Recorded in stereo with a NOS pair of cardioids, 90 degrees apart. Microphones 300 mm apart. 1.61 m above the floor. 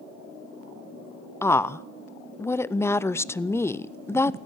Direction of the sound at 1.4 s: 10° left.